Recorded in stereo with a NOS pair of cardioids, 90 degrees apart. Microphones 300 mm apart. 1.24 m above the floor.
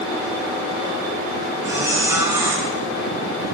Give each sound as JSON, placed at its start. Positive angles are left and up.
{"t": 1.6, "sound": "a squeak", "azimuth_deg": -10, "distance_m": 5.0}